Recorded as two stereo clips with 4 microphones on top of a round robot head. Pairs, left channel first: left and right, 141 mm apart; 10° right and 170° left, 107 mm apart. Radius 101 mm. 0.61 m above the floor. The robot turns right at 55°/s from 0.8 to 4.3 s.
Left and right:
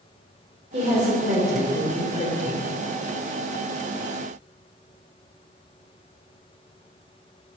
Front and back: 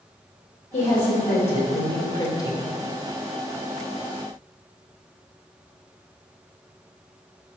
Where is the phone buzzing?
No phone buzzing in this recording.